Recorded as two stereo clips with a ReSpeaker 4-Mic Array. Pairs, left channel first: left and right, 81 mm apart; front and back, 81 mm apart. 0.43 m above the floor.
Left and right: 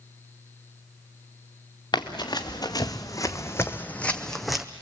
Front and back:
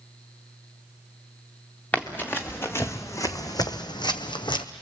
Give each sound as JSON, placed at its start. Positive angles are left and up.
{"t": 1.9, "sound": "running footsteps", "azimuth_deg": 70, "distance_m": 2.0}